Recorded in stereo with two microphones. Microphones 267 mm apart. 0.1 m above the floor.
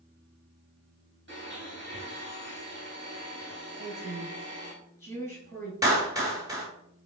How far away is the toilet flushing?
I don't hear a toilet flushing.